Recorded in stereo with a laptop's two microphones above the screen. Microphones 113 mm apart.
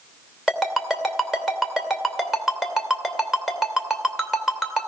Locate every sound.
0.5 s a ringtone: 5° right (ahead or behind), 2.5 m